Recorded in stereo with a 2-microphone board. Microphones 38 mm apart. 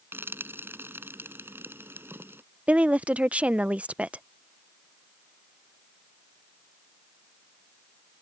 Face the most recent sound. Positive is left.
turn(degrees=-35)  # may be behind; listen again after turning